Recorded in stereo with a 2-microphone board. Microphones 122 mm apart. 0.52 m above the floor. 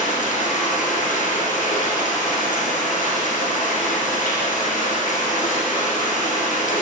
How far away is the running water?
About 2.5 m.